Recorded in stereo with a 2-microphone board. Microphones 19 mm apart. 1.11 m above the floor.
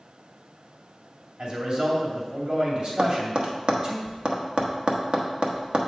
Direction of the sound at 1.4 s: 60° right (ahead or behind).